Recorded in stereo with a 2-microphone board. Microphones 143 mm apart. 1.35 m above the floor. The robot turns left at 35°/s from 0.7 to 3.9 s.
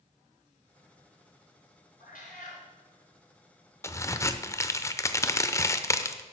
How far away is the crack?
About 0.6 m.